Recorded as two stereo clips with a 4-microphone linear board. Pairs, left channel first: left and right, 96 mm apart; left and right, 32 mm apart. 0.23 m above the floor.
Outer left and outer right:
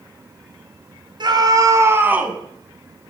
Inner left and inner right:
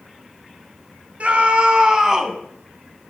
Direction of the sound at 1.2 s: 50° right (ahead or behind).